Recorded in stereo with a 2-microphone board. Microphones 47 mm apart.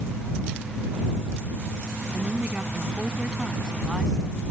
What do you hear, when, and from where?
2.1 s a woman speaking: 30° right (ahead or behind); by 4.5 s 5° right (ahead or behind)